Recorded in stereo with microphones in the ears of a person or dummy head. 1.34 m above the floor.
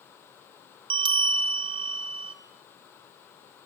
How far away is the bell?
About 1.9 m.